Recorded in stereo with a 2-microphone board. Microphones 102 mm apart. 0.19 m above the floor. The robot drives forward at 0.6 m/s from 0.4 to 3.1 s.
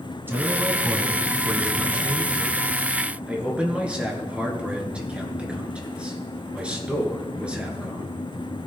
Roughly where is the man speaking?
Right.